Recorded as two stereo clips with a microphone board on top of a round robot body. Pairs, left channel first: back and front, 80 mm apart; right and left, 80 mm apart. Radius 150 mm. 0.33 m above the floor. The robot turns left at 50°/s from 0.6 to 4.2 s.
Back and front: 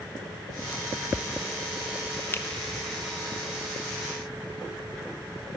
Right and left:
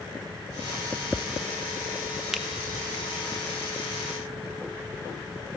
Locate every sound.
2.3 s a finger snap: 170° left, 0.6 m; by 2.5 s 165° left, 0.6 m